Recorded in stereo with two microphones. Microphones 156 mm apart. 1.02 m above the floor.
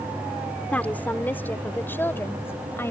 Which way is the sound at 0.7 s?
10° left (ahead or behind).